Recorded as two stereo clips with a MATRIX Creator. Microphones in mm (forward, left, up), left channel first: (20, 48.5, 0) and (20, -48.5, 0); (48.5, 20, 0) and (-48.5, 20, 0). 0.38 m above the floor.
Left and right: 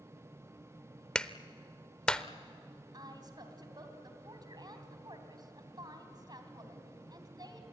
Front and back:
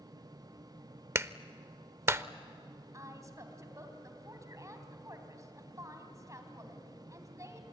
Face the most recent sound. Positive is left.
turn(degrees=-130)